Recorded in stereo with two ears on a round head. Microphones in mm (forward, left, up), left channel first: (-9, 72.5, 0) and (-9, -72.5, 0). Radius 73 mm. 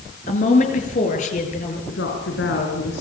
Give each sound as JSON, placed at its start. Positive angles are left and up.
{"t": 0.3, "sound": "a woman speaking", "side_deg": 45, "distance_m": 6.5}
{"t": 1.9, "sound": "a woman speaking", "side_deg": 80, "distance_m": 6.0}